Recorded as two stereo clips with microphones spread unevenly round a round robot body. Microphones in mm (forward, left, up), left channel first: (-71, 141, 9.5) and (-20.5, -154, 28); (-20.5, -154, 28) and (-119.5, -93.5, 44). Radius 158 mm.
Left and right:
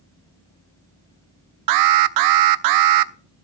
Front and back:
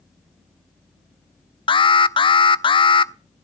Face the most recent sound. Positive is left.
turn(degrees=-75)